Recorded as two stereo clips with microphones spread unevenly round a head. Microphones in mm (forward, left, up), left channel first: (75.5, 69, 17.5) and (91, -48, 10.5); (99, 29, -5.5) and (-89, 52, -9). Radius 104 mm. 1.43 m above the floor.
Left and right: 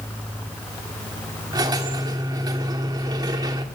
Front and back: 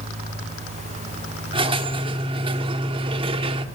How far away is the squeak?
About 1.2 m.